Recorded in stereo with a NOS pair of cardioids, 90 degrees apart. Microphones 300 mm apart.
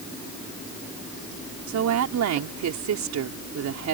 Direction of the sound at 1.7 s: 65° right.